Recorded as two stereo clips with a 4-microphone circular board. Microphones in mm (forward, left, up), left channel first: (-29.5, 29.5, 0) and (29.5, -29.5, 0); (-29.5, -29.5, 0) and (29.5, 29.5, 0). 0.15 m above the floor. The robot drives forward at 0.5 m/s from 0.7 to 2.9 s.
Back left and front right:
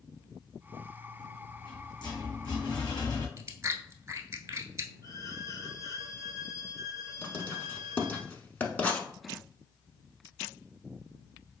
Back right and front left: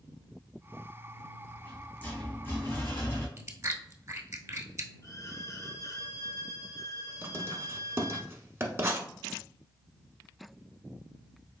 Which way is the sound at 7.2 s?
75° left.